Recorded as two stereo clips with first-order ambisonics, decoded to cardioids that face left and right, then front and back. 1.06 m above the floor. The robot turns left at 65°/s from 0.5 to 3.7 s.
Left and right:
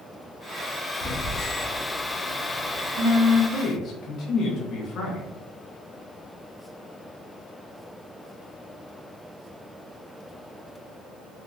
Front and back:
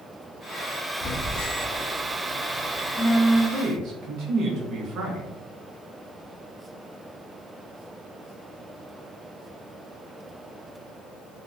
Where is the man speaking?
150° left, 0.6 m; by 5.3 s 140° left, 0.6 m.